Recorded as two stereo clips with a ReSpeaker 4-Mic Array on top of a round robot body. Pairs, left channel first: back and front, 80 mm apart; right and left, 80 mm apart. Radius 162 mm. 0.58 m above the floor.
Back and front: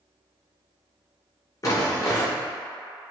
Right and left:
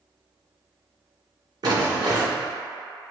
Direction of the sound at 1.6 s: 130° left.